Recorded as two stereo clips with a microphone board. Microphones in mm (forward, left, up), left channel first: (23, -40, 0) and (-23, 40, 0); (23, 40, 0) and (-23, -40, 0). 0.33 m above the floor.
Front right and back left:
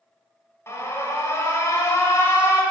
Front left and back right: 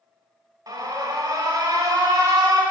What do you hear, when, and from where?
0.7 s an alarm: 105° right, 1.0 m